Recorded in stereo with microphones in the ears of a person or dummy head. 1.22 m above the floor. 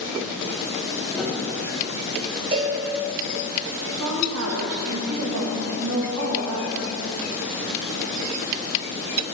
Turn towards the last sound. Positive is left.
turn(degrees=-80)